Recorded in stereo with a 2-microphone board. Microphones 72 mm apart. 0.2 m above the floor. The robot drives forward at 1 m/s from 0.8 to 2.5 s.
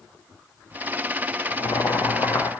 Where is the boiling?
70° left (ahead or behind), 1.1 m; by 2.5 s 35° left (ahead or behind), 1.7 m.